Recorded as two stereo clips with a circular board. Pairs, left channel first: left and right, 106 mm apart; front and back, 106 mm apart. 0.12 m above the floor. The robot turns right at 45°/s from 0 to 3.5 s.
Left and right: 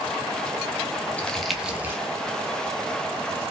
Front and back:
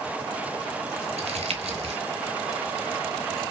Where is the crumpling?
165° left, 0.6 m; by 2.0 s 155° right, 0.6 m.